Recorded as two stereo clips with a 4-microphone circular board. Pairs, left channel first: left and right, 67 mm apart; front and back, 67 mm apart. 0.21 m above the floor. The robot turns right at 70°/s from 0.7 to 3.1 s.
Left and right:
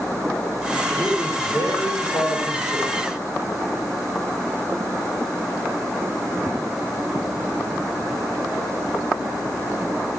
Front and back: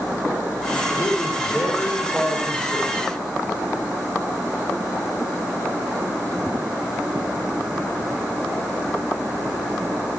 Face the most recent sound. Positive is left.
turn(degrees=145)